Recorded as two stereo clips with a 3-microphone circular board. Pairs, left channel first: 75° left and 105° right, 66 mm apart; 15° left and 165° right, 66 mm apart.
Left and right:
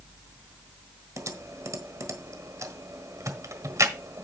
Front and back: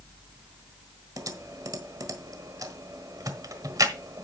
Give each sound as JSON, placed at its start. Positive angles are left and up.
{"t": 1.2, "sound": "typing on a keyboard", "azimuth_deg": -140, "distance_m": 1.3}